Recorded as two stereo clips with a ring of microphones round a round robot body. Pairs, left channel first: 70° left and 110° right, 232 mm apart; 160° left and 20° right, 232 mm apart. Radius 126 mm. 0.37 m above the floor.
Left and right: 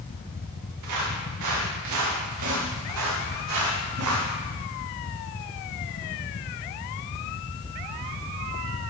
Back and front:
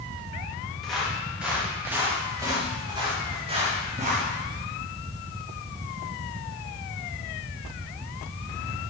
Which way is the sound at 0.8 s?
115° right.